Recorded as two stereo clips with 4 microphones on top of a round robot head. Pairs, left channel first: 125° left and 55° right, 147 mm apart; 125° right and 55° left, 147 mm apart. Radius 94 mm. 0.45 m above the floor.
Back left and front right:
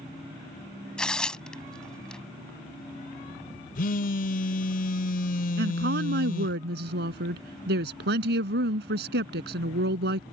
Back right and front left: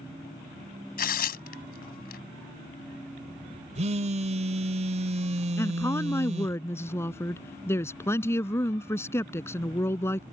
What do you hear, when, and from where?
1.0 s tearing paper: 150° right
3.8 s a phone buzzing: 100° left
5.6 s a woman speaking: 55° right